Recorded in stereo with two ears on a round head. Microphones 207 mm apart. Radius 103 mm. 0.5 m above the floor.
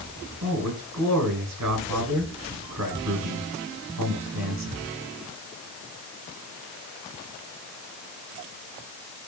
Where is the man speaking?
75° right (ahead or behind), 5.5 m.